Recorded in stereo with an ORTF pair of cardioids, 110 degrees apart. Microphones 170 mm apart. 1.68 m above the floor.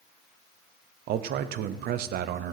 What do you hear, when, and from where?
1.1 s a man speaking: 65° right, 0.8 m